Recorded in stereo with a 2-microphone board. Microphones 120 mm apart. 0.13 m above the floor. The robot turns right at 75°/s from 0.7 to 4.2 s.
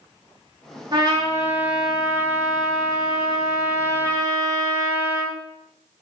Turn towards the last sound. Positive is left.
turn(degrees=170)